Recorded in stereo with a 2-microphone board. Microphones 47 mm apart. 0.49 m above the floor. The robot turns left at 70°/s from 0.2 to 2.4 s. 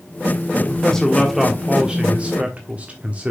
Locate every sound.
0.6 s a man speaking: 25° left (ahead or behind), 1.4 m; by 3.3 s 30° right (ahead or behind), 1.4 m